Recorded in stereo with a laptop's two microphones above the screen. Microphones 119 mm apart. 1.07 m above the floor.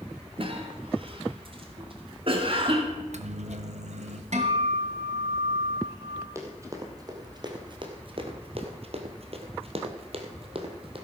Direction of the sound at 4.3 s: 70° right (ahead or behind).